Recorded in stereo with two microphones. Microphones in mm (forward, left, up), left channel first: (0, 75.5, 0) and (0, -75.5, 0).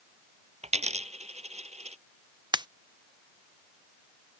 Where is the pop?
30° right (ahead or behind).